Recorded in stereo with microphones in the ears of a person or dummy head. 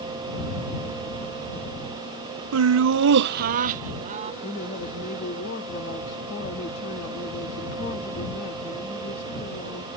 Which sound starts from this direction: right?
Laughter, at 2.5 s.